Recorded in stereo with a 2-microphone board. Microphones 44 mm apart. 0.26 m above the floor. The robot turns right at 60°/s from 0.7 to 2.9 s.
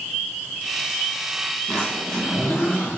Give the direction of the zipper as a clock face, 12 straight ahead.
11 o'clock.